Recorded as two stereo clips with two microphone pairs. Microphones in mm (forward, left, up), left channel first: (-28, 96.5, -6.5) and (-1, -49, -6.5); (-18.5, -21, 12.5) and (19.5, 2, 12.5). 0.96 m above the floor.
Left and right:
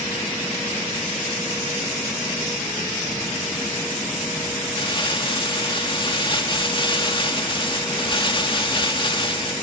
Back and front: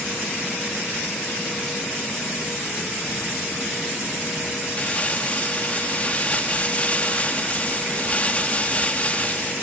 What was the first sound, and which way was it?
Crumpling, 155° left.